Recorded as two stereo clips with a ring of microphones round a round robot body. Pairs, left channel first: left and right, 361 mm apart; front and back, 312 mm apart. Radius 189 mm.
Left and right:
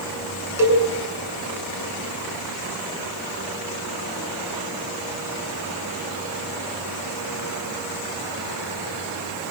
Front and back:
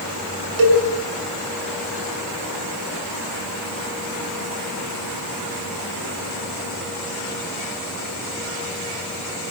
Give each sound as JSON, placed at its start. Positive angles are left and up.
{"t": 0.6, "sound": "a cowbell", "azimuth_deg": -175, "distance_m": 8.0}